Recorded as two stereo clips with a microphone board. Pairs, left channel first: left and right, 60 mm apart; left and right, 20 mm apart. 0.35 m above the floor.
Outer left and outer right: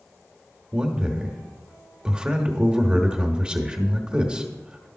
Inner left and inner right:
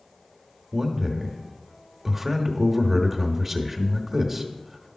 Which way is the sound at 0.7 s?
15° right (ahead or behind).